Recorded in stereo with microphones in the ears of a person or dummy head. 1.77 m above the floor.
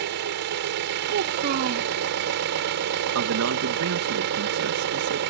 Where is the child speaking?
45° right (ahead or behind).